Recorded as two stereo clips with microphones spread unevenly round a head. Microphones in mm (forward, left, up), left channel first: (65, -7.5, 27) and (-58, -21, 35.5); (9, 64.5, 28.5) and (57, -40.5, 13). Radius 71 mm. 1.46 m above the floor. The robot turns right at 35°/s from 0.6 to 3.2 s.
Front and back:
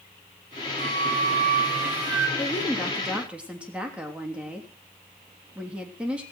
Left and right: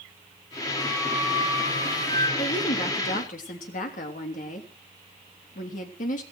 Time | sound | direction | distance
0.8 | a flute | 160° right | 4.5 m
2.4 | a woman speaking | 75° left | 3 m